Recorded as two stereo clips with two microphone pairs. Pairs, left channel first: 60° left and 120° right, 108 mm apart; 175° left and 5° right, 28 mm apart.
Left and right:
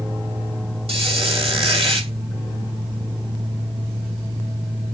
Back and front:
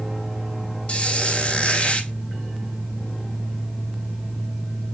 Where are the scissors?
I don't hear scissors.